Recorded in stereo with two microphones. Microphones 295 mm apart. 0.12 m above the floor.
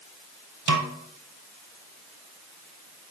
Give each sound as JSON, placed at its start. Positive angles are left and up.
{"t": 0.7, "sound": "a snare drum", "side_deg": -75, "distance_m": 1.1}